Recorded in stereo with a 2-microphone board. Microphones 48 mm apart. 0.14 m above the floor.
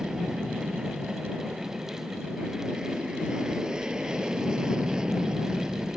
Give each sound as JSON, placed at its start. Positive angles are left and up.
{"t": 0.0, "sound": "an aircraft", "side_deg": -15}